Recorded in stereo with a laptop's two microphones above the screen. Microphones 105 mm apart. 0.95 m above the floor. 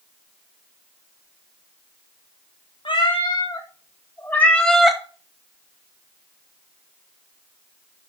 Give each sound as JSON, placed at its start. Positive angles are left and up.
{"t": 2.9, "sound": "a cat meowing", "side_deg": 55, "distance_m": 1.6}